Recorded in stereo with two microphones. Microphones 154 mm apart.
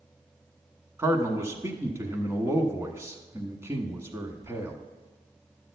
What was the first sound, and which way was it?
A man speaking, 15° right (ahead or behind).